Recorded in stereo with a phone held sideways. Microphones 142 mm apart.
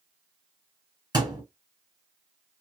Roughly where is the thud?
Right.